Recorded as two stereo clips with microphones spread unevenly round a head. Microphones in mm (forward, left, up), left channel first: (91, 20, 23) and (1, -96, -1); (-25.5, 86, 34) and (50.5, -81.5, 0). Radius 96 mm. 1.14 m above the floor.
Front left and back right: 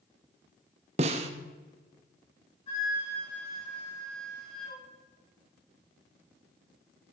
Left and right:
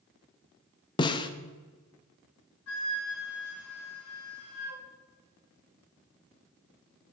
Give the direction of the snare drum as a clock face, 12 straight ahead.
6 o'clock.